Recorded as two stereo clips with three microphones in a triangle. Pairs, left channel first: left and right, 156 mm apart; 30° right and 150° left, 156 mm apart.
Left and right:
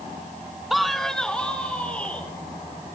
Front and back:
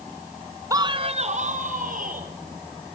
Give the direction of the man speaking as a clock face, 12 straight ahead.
6 o'clock.